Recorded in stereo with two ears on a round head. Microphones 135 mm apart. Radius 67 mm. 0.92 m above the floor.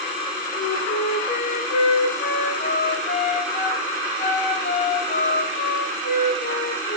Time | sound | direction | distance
0.6 | a flute | 50° left (ahead or behind) | 2.5 m